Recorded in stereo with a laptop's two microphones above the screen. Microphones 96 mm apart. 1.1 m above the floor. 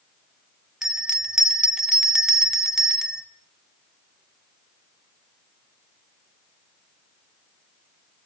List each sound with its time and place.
0.8 s a bell: 5° right (ahead or behind), 1.4 m